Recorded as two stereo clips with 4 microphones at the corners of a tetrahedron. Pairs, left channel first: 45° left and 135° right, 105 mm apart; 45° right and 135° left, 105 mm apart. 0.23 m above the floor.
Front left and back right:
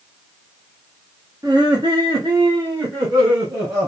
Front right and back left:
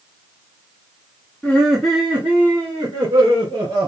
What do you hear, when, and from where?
1.4 s laughter: 115° right, 1.6 m; by 3.9 s 170° left, 3 m